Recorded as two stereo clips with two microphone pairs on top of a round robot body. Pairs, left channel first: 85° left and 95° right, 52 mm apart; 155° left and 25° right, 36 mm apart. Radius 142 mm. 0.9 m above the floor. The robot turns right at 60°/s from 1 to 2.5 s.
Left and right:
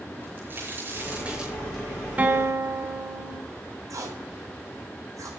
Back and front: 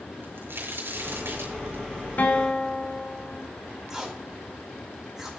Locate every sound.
0.2 s a crack: 40° right, 7 m; by 1.8 s 10° left, 7 m
2.2 s a guitar: 155° right, 2.5 m; by 3.4 s 135° right, 2.5 m
3.9 s tape being pulled: 100° right, 4 m